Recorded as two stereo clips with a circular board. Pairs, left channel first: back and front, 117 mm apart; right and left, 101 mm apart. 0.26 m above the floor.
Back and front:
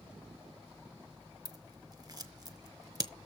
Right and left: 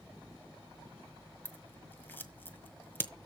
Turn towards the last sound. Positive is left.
turn(degrees=-30)